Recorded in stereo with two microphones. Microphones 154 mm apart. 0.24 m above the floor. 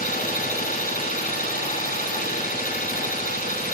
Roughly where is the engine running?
Left.